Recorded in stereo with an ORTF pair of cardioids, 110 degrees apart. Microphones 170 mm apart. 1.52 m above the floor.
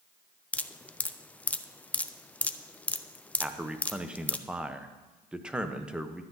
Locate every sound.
0.5 s dripping: 10° left, 0.5 m
3.4 s a man speaking: 5° right, 1.0 m